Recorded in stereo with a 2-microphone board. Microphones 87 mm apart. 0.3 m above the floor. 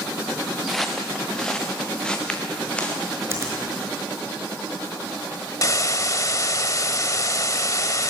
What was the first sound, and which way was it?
Footsteps, centre (ahead or behind).